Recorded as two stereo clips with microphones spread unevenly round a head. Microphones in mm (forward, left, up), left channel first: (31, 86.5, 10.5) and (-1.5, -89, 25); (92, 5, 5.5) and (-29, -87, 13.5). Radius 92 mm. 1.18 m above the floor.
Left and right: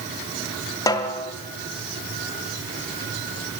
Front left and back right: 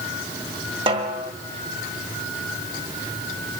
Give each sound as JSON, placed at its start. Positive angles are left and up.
{"t": 0.9, "sound": "a snare drum", "azimuth_deg": 155, "distance_m": 1.6}